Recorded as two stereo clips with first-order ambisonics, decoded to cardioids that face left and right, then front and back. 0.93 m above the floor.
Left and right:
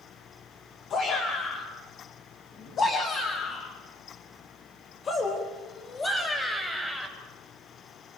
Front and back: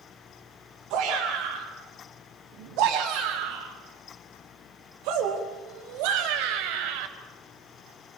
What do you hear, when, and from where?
0.9 s a shout: 140° left, 6 m; by 7.1 s 170° left, 4 m